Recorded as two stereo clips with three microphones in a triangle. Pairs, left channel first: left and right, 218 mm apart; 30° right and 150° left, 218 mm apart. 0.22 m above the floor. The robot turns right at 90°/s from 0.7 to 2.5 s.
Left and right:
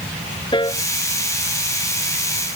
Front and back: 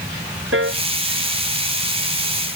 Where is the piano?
155° left; by 0.8 s 165° left.